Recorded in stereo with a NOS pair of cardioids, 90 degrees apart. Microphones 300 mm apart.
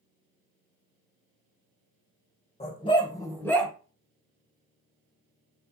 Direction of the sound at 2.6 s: 20° left.